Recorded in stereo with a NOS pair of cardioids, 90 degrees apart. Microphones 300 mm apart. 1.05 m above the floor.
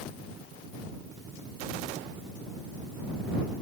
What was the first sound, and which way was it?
Only background noise.